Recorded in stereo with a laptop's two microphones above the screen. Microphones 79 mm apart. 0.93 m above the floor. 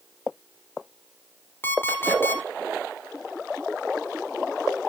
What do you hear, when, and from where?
1.6 s an alarm clock: 25° left (ahead or behind), 1.5 m